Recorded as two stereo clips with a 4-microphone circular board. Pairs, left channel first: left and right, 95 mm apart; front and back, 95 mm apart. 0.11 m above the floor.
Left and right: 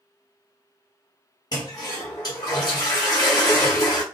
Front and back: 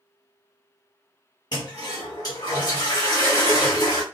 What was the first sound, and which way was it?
A toilet flushing, 45° left.